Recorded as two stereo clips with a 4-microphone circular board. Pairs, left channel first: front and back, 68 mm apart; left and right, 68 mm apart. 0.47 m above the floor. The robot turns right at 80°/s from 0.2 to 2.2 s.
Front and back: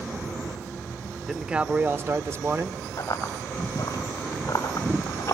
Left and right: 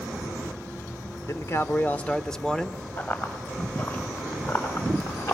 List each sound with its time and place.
1.3 s a man speaking: 90° left, 0.9 m; by 2.8 s 165° left, 0.9 m
3.0 s running footsteps: 35° left, 6 m; by 5.3 s 50° left, 5 m